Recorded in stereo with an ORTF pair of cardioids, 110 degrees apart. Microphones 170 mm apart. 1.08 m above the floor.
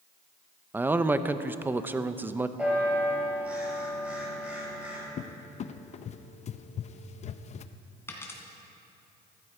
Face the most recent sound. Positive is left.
turn(degrees=15)